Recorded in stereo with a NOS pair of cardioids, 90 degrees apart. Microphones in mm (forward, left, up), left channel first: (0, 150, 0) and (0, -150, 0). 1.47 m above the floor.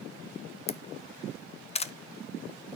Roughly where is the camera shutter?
Ahead.